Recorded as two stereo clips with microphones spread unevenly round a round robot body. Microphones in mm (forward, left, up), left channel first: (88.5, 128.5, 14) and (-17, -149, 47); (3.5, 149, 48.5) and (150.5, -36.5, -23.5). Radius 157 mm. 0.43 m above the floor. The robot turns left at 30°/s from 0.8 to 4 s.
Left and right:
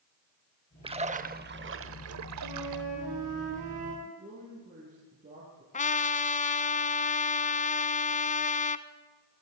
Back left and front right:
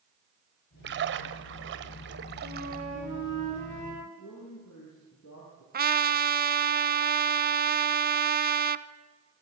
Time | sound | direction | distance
0.8 | a splash | 35° right | 1.6 m
2.4 | a flute | 110° right | 9.5 m
4.0 | a man speaking | straight behind | 9.5 m
5.7 | a trumpet | straight ahead | 1.1 m